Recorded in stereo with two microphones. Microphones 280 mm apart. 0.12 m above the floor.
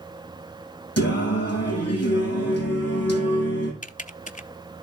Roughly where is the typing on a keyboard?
Left.